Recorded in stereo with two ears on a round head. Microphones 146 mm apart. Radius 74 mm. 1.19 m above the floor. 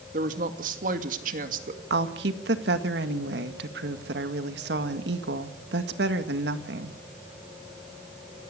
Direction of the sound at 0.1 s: 50° right (ahead or behind).